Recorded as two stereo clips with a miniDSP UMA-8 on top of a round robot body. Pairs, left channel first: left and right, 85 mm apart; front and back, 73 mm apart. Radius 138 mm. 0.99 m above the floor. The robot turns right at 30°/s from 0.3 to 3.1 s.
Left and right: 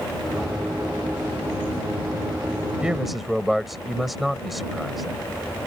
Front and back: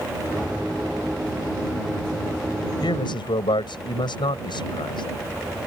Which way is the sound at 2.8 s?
10° right.